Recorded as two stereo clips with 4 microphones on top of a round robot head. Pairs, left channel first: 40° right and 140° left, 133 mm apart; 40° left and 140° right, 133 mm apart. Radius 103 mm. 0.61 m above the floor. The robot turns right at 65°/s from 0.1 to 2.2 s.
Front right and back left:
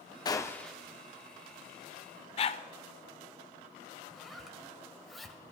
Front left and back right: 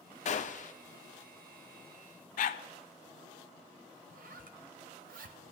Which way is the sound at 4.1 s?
130° right.